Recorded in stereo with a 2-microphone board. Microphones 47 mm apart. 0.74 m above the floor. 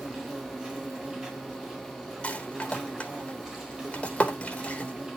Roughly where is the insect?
Centre.